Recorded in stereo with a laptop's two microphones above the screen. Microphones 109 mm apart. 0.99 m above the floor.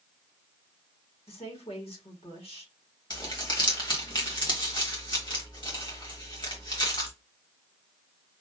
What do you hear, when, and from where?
1.3 s a woman speaking: 65° left (ahead or behind), 1.7 m
3.1 s crumpling: 45° left (ahead or behind), 1.5 m